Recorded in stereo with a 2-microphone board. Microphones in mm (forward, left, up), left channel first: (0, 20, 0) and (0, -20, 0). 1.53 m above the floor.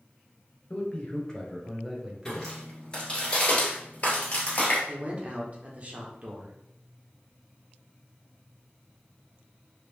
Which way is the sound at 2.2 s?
15° left (ahead or behind).